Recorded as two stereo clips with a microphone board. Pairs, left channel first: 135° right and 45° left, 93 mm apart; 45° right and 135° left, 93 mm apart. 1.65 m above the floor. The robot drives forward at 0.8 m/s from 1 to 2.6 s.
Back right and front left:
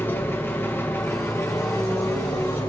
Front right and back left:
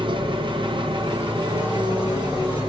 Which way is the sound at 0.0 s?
160° left.